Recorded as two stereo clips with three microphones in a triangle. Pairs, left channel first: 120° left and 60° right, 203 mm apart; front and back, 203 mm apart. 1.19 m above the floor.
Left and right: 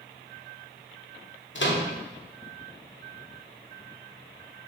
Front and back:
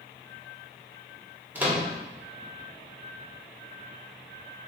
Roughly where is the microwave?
Left.